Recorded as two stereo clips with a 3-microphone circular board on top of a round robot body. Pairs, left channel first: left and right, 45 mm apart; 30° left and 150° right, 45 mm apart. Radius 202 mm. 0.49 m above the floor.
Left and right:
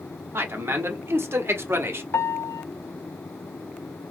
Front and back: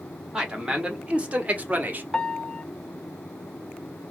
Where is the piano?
105° left, 0.7 m.